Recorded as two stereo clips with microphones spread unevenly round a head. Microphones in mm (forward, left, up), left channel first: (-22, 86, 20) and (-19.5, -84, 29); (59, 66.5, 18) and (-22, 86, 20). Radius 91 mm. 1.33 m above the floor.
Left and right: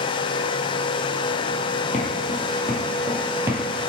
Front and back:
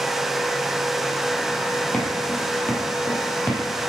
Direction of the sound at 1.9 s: 60° left.